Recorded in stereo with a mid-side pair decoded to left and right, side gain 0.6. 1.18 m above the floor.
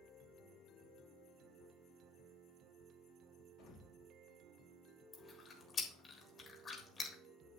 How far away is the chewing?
About 3.5 m.